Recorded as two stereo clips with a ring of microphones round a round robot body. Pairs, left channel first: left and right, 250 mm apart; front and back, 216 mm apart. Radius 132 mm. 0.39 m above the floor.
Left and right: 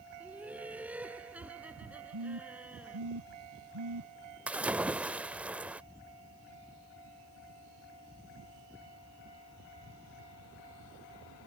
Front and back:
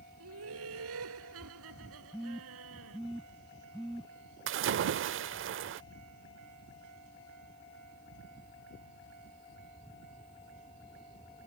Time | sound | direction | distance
0.2 | laughter | 175° right | ?
2.1 | a phone buzzing | 95° right | ?
4.5 | a splash | 175° right | ?